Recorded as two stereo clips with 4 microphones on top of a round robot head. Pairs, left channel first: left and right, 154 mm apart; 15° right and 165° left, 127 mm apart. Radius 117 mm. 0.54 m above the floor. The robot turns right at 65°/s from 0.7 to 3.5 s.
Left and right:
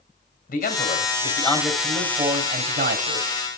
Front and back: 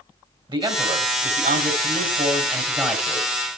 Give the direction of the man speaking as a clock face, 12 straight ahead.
8 o'clock.